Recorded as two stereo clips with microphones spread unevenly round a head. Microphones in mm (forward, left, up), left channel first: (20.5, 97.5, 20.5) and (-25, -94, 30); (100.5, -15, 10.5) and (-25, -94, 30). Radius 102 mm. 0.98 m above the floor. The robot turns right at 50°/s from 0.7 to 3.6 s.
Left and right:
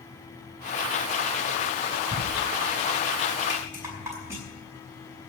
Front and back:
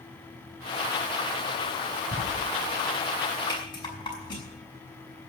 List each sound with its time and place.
2.1 s writing: 155° right, 2.5 m; by 2.2 s 150° right, 2.5 m
3.5 s a rattle: 30° right, 5 m; by 4.4 s 25° right, 5 m